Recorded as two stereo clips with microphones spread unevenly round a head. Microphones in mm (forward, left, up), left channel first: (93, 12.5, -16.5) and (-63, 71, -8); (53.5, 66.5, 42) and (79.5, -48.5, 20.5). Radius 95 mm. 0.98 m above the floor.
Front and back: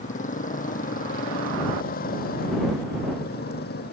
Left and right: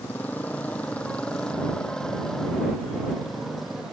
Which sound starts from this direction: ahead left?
A motorcycle, at 0.0 s.